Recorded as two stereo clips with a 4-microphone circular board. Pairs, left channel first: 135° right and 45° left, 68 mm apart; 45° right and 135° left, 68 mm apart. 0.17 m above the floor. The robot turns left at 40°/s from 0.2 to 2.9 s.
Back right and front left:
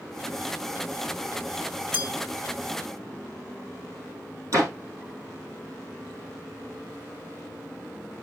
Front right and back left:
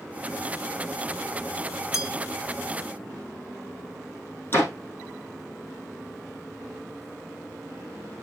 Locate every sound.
1.9 s a bell: 5° left, 2 m; by 2.1 s 5° right, 2 m
4.5 s a door slam: 10° left, 4.5 m